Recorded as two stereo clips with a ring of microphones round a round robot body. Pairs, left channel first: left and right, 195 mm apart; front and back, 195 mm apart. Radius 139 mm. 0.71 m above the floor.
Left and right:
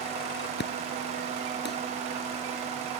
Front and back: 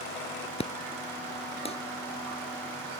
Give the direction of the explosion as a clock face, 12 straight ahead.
10 o'clock.